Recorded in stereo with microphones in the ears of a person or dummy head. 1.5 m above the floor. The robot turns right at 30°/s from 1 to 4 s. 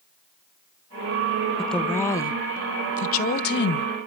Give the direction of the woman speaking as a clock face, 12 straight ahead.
12 o'clock.